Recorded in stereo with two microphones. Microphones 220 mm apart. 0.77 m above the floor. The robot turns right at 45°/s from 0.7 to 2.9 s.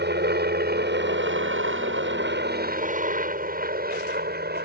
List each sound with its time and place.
0.0 s a helicopter: 50° right (ahead or behind)